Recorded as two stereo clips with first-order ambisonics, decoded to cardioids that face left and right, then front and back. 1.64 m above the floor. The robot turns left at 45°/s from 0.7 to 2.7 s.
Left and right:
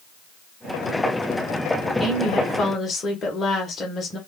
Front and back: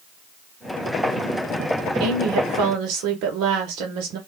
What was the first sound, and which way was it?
A woman speaking, 170° right.